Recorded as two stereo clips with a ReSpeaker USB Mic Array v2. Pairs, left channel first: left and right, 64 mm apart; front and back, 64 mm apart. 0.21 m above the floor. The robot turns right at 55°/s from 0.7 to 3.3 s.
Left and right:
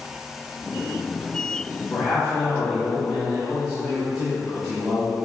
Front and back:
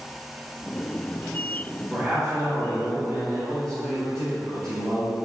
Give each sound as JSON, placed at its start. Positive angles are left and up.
{"t": 1.9, "sound": "a man speaking", "azimuth_deg": 115, "distance_m": 1.8}